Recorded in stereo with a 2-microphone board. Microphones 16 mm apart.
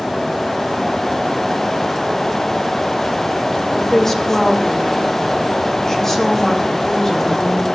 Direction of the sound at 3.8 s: 30° left (ahead or behind).